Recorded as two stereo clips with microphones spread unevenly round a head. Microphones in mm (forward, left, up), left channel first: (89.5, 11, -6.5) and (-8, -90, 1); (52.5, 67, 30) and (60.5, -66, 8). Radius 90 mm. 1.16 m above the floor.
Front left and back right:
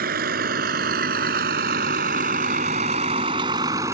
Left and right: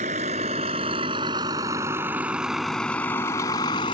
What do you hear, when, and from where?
0.0 s a vehicle: 140° right; by 3.9 s 155° left